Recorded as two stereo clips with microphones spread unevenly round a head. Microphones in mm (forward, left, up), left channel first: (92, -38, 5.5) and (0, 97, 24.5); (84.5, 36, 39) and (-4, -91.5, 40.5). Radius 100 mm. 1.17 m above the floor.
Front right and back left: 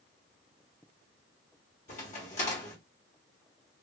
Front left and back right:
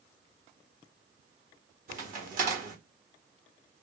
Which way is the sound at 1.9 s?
110° right.